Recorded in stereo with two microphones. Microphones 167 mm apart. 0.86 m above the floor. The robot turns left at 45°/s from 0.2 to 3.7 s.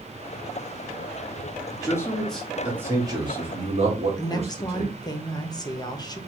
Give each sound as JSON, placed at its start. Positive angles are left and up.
{"t": 1.7, "sound": "a man speaking", "side_deg": 25, "distance_m": 1.3}
{"t": 4.2, "sound": "a woman speaking", "side_deg": 25, "distance_m": 0.7}